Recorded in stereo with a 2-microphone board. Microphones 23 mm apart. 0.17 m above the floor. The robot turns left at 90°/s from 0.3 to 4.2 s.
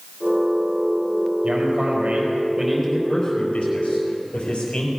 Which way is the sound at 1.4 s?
55° right.